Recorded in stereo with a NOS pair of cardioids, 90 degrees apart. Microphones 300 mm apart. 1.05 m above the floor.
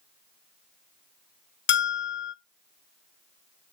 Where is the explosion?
No explosion in this recording.